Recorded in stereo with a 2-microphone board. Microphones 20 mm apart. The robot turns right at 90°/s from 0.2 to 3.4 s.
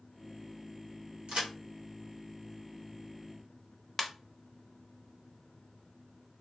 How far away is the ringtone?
About 0.8 m.